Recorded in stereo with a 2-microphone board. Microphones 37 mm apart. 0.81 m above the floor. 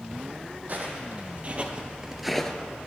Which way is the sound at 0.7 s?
55° right (ahead or behind).